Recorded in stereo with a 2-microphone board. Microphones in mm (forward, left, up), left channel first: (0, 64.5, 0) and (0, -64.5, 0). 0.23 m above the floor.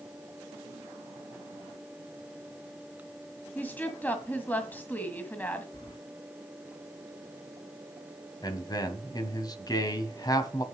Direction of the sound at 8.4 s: 30° left (ahead or behind).